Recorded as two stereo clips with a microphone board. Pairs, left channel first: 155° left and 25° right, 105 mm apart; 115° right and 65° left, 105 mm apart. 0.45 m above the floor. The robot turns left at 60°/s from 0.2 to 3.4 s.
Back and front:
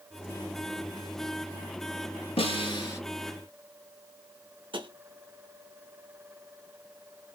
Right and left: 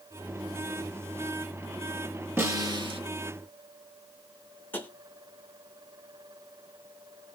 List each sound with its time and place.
2.4 s a snare drum: 135° left, 1.3 m; by 3.0 s 95° left, 1.3 m
4.7 s tapping: 45° right, 0.7 m